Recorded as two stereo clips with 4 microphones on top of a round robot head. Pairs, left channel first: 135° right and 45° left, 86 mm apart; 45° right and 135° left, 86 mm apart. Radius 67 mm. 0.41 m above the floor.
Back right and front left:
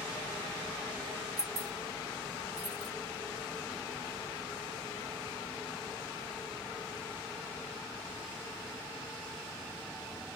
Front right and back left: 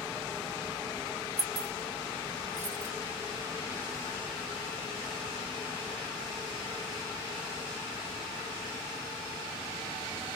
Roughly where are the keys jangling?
Left.